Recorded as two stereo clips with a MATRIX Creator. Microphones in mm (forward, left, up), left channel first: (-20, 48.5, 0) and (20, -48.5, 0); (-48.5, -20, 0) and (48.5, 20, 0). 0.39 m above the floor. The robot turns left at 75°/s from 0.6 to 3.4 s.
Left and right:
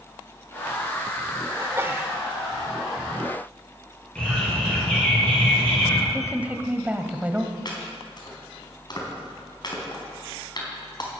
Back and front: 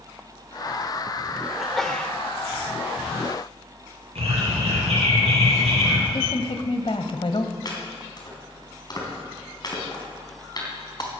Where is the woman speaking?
140° right, 1.6 m.